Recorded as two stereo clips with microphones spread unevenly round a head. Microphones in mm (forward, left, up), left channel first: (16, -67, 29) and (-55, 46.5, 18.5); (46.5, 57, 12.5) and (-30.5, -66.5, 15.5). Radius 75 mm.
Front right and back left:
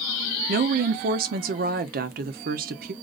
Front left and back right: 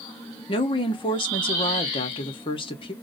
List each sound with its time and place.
0.5 s a woman speaking: 115° left, 0.7 m